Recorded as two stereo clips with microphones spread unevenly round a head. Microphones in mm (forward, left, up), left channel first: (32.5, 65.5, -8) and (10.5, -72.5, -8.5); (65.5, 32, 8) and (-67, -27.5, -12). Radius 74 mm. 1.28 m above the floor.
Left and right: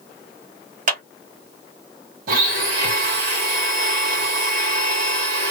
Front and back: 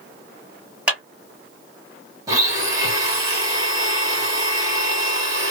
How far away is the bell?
No bell in this recording.